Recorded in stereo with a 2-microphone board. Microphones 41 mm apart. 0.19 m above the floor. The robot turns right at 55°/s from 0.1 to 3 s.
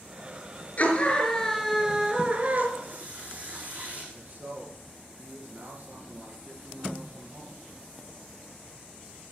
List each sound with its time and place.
0.8 s a scream: 130° left, 3 m; by 2.7 s 125° right, 3 m
2.8 s a running tap: 50° right (ahead or behind), 6.5 m; by 4.0 s 40° right (ahead or behind), 6.5 m
4.1 s a man speaking: 50° right (ahead or behind), 3 m